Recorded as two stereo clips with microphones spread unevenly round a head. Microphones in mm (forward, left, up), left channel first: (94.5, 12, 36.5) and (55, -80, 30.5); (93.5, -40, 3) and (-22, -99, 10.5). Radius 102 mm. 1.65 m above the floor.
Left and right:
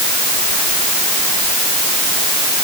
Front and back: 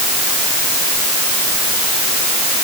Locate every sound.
Only background noise.